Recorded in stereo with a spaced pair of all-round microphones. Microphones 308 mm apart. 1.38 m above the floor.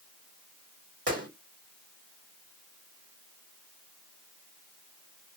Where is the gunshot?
50° right (ahead or behind), 2 m.